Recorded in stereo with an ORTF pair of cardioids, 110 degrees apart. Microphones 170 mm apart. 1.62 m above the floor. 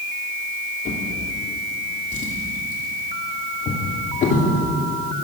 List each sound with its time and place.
0.8 s a drawer: 55° left, 2.5 m